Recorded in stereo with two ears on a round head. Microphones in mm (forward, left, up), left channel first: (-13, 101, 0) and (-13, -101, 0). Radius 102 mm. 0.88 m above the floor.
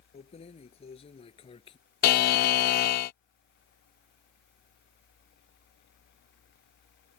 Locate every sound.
0.1 s keys jangling: 30° left (ahead or behind); by 1.8 s 25° left (ahead or behind)
2.0 s a buzzer: 40° left (ahead or behind)